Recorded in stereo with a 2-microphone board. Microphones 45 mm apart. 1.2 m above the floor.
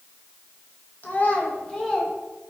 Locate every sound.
1.0 s a child speaking: 45° left (ahead or behind), 1.0 m; by 2.1 s 10° left (ahead or behind), 1.2 m